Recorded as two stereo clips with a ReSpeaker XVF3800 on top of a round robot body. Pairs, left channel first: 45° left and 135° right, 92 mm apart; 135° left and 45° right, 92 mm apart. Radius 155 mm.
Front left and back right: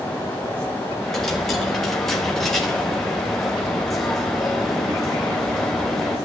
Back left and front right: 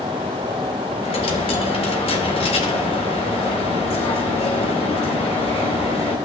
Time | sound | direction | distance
1.0 | a dropped coin | 130° left | 1.2 m